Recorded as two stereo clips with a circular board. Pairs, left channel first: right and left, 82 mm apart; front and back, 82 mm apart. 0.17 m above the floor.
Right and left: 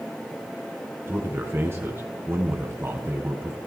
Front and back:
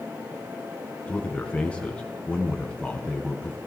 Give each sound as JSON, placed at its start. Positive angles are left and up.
{"t": 1.1, "sound": "a man speaking", "azimuth_deg": 65, "distance_m": 1.7}